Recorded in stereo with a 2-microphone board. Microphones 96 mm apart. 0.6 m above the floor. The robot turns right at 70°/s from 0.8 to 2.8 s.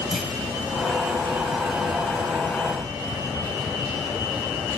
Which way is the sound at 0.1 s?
5° right (ahead or behind).